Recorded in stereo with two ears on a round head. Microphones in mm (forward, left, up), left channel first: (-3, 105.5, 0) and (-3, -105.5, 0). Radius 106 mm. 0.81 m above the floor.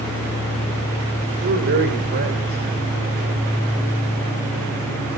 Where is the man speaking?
45° right (ahead or behind), 3.5 m.